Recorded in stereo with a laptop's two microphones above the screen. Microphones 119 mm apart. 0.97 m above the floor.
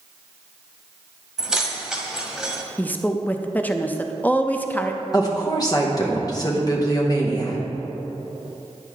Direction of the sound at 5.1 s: 35° left (ahead or behind).